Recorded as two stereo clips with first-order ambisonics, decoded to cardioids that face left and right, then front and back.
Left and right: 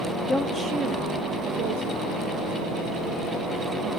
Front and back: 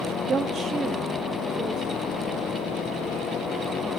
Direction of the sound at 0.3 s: 130° left.